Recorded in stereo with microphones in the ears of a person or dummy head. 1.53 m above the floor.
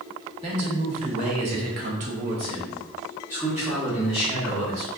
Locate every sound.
0.4 s a man speaking: 35° right (ahead or behind), 1.0 m; by 4.9 s centre (ahead or behind), 1.5 m